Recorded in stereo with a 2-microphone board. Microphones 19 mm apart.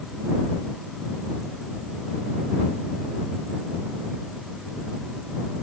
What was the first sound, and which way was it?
Only background noise.